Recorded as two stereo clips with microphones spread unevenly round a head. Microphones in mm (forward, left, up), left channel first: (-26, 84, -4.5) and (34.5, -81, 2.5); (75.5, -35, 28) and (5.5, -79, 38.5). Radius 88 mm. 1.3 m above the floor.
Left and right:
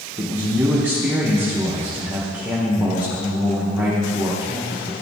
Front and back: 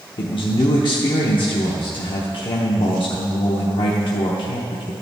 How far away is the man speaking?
About 0.9 m.